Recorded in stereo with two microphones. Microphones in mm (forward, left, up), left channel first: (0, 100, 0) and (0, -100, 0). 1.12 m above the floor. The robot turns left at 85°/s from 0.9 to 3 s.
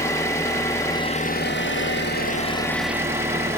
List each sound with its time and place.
0.0 s an engine running: 165° left, 0.9 m; by 3.6 s 15° right, 0.9 m